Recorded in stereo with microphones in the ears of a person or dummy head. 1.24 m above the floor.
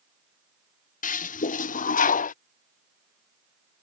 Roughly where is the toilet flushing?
Left.